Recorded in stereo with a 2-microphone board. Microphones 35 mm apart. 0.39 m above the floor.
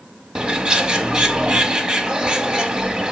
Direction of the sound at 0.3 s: 25° right (ahead or behind).